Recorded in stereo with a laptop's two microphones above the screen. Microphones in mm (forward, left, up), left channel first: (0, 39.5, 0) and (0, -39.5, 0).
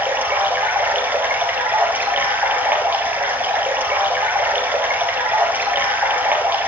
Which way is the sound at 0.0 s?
25° right (ahead or behind).